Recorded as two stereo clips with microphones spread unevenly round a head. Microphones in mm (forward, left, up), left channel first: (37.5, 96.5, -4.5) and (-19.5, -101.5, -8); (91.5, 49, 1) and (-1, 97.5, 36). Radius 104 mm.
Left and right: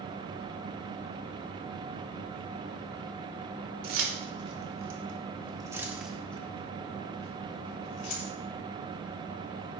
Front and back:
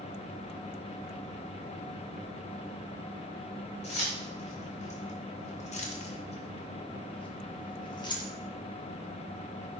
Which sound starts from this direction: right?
Keys jangling, at 3.8 s.